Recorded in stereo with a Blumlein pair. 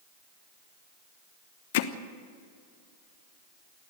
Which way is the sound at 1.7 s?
50° left.